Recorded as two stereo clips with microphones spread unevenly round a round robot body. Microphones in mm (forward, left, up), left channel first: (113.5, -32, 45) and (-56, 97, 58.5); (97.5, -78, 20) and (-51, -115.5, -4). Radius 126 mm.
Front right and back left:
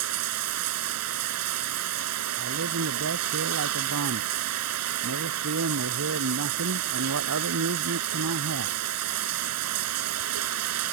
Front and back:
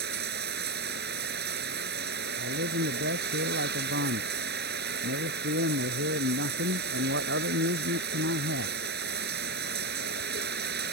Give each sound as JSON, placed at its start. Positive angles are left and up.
{"t": 0.0, "sound": "running water", "azimuth_deg": 160}
{"t": 2.4, "sound": "a man speaking", "azimuth_deg": 175}